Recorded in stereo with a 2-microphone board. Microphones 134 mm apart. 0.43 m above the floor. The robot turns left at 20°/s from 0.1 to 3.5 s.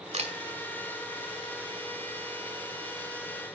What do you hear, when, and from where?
0.1 s a camera shutter: 55° right (ahead or behind), 2 m